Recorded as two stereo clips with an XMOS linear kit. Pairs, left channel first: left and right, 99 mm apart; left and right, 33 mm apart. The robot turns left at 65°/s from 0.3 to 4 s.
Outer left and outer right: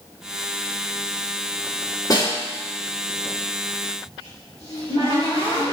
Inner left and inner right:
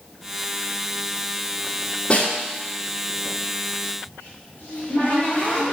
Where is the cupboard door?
80° left, 3 m.